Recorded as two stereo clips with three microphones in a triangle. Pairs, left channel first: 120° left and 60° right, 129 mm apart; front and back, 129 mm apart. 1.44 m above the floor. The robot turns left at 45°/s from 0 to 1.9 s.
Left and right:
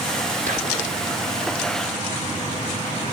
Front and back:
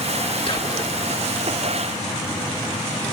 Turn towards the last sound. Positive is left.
turn(degrees=-115)